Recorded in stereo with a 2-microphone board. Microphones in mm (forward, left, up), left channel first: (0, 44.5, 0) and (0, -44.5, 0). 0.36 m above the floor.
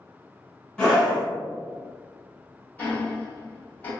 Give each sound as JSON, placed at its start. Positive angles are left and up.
{"t": 0.8, "sound": "a scream", "side_deg": 10, "distance_m": 1.8}
{"t": 2.8, "sound": "ticking", "side_deg": 20, "distance_m": 1.2}